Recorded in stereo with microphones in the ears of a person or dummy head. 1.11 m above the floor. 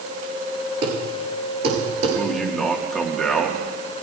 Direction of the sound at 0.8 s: 35° right (ahead or behind).